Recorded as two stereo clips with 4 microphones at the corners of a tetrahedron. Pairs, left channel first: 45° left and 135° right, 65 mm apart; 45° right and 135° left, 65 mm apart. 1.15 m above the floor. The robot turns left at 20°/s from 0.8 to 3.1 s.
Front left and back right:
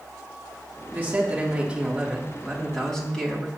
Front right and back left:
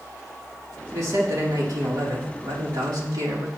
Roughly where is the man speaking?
Behind.